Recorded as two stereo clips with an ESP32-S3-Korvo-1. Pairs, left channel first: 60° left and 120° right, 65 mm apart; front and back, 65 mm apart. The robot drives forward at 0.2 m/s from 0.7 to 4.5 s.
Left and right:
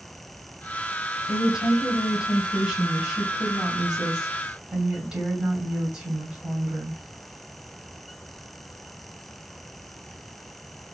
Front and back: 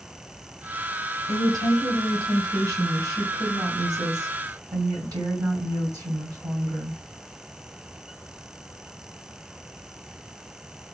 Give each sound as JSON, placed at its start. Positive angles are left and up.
{"t": 1.3, "sound": "a woman speaking", "azimuth_deg": 160, "distance_m": 2.5}